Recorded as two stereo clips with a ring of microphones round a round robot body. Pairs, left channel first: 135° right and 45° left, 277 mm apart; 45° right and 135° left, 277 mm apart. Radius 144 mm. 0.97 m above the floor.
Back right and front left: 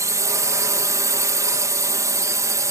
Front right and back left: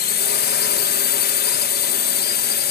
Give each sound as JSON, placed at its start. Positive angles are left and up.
{"t": 0.0, "sound": "a drone", "azimuth_deg": -25}